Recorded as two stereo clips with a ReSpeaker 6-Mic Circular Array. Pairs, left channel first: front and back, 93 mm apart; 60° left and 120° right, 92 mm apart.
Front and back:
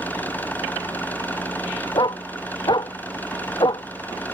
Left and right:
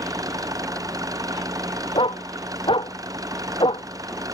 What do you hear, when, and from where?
0.0 s an engine running: 70° right
1.9 s a dog barking: 35° left